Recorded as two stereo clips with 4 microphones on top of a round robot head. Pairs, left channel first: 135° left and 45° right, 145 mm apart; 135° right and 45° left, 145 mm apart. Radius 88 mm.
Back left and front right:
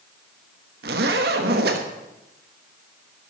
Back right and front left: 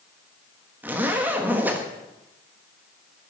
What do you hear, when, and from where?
0.8 s a zipper: 35° right, 1.3 m